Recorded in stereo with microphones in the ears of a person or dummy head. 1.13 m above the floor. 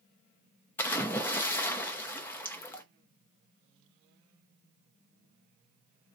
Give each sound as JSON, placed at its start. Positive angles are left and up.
{"t": 0.8, "sound": "a splash", "side_deg": 15, "distance_m": 0.7}